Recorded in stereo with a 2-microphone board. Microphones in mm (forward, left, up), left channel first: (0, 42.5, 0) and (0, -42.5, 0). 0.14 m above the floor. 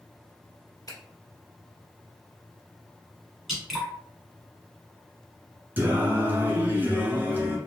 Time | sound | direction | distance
0.9 | a finger snap | 50° left (ahead or behind) | 1.3 m
3.5 | dripping | 5° right (ahead or behind) | 1.4 m
5.8 | singing | 25° right (ahead or behind) | 1.1 m